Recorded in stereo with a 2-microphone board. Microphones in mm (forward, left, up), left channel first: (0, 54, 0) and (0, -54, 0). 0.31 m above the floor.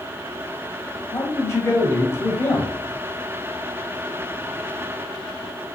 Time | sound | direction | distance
1.1 | a man speaking | 30° left (ahead or behind) | 1.3 m